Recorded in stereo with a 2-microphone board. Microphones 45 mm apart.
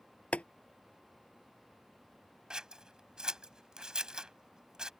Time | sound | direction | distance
0.3 | boiling | 30° left (ahead or behind) | ?
2.5 | scissors | 15° right (ahead or behind) | ?